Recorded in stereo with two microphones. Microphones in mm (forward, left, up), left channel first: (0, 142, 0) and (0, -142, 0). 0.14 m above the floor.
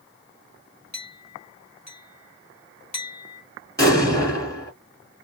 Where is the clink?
70° left (ahead or behind), 2 m.